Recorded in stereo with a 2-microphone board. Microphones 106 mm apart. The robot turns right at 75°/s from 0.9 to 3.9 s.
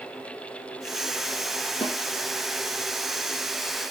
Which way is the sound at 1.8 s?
55° left (ahead or behind).